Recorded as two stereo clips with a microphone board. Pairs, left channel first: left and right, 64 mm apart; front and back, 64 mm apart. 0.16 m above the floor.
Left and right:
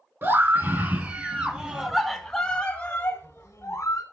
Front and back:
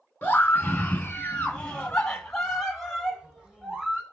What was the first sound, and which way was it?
A scream, 55° right.